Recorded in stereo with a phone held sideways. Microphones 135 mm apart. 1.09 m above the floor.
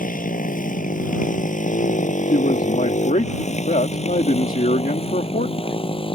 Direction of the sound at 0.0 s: 85° left.